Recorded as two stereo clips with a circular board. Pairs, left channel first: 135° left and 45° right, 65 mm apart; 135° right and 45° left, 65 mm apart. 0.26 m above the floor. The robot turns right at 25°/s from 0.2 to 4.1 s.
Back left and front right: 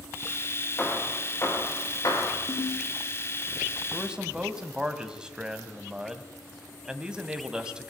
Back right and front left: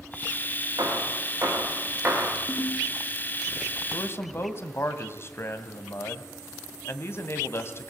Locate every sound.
0.8 s hammering: 70° left, 6 m; by 2.4 s 110° left, 6 m
2.5 s a ringtone: 150° left, 5.5 m; by 2.9 s 160° left, 5.5 m
3.9 s a man speaking: 120° right, 1.9 m; by 7.9 s 115° right, 1.9 m